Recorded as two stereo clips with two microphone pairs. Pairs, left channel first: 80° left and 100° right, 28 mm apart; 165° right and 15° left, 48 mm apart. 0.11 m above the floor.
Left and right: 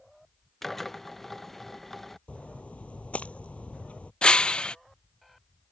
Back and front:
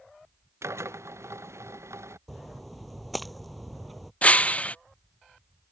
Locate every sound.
0.6 s a drill: straight ahead
2.3 s a splash: 105° left
4.2 s breaking glass: 135° left